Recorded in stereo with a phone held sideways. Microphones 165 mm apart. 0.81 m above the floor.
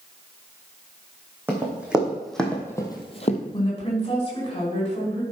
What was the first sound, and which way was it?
Running footsteps, 10° right (ahead or behind).